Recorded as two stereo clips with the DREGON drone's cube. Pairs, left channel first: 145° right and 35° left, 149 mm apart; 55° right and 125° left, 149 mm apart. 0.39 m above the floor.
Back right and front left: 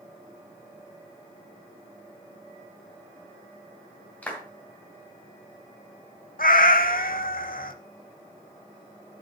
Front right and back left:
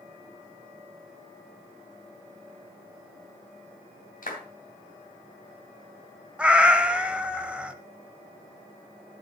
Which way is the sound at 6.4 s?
155° right.